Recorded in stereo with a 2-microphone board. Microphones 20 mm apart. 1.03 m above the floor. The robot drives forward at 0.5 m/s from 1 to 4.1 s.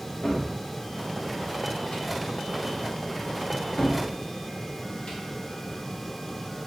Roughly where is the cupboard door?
Left.